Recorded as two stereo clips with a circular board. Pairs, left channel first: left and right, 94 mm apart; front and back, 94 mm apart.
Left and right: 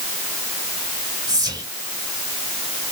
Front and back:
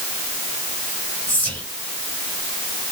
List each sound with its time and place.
1.3 s whispering: 70° right, 1.7 m